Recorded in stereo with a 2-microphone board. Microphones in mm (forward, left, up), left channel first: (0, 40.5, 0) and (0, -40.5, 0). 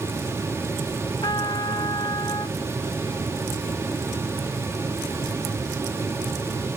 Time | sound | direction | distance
1.2 | a trumpet | 70° left (ahead or behind) | ?